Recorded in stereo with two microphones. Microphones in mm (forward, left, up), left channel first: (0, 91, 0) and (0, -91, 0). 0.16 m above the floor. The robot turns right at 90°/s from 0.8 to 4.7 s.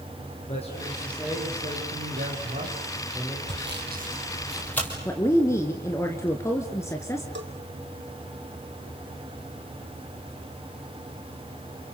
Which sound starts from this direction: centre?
A woman speaking, at 5.0 s.